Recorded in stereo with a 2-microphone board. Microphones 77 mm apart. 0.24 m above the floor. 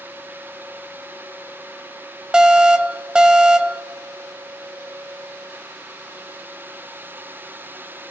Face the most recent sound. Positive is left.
turn(degrees=-10)  # may be behind; listen again after turning